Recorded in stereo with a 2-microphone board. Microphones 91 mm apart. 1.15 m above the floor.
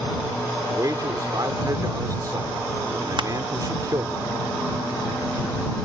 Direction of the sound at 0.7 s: 45° right (ahead or behind).